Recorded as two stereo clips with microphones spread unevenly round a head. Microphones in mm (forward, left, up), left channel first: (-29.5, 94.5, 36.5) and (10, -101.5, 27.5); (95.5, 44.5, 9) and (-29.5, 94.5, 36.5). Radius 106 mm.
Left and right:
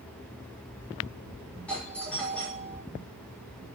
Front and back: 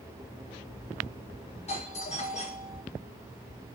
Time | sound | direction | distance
1.7 | a doorbell | 15° left | 7.5 m